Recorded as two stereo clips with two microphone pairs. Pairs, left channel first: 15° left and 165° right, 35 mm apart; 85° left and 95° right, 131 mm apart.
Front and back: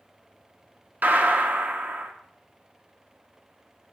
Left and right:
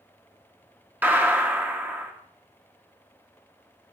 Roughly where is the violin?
No violin in this recording.